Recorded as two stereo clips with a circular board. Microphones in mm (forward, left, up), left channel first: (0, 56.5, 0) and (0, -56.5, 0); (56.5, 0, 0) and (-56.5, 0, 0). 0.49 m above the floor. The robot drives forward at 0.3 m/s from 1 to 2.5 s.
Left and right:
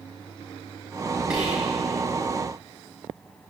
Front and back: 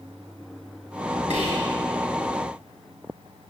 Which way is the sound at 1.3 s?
170° right.